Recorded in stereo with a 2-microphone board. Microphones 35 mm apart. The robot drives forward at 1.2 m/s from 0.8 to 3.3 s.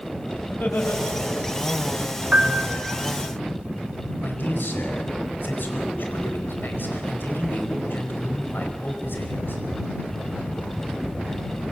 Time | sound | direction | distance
0.5 | laughter | 65° left (ahead or behind) | 5.5 m
2.3 | a piano | 40° right (ahead or behind) | 2.5 m
4.2 | a man speaking | 70° left (ahead or behind) | 5 m